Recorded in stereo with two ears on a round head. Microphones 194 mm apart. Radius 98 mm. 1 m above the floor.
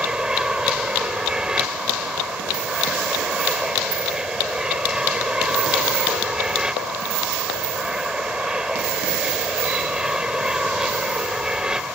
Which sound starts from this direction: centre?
An aircraft, at 0.0 s.